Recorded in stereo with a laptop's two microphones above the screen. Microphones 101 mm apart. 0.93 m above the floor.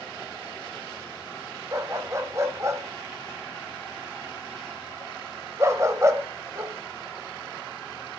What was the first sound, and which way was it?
A dog barking, 30° right (ahead or behind).